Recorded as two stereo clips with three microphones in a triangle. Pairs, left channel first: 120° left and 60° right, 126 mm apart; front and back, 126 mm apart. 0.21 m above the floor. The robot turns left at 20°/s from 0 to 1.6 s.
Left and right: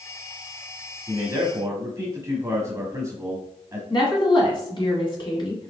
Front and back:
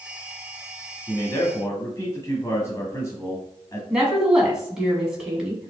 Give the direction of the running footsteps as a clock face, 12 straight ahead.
I don't hear running footsteps.